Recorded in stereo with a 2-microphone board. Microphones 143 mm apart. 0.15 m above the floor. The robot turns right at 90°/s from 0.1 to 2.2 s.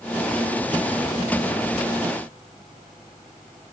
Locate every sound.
Only background noise.